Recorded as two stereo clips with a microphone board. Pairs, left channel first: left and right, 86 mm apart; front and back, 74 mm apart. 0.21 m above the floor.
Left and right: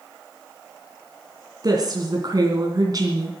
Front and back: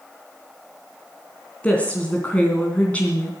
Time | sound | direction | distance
1.6 | a woman speaking | 65° right | 2.5 m